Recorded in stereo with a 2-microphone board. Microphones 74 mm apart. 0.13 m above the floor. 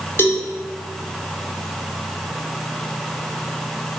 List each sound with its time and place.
0.2 s a cowbell: 35° left (ahead or behind), 1.7 m